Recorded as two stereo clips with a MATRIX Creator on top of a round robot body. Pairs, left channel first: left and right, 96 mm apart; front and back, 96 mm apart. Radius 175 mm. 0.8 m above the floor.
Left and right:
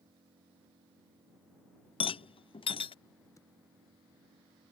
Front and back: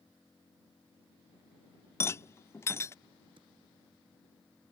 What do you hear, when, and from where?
0.0 s an engine running: 75° right
2.0 s a rattle: 65° left
3.4 s typing on a keyboard: 150° left